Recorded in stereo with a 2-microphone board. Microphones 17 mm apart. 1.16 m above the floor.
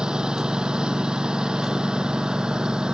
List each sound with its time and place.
0.0 s a lawn mower: 60° right (ahead or behind)